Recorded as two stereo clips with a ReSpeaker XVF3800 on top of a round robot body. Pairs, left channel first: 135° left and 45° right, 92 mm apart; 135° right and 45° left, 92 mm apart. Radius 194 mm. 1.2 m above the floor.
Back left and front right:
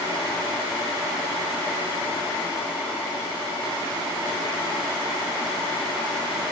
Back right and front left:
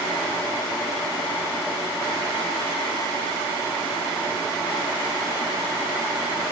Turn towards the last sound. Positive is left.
No sound to turn to.